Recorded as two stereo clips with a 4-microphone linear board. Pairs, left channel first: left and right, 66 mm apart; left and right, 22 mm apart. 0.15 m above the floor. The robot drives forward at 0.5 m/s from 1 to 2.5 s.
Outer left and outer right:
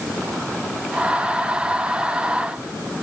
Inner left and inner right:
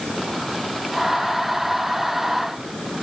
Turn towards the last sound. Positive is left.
No sound to turn to.